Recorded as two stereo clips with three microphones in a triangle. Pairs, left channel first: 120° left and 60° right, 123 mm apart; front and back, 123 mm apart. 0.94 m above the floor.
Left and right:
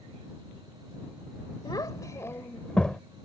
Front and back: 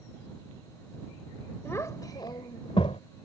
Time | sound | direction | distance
1.6 | a child speaking | 65° left | ?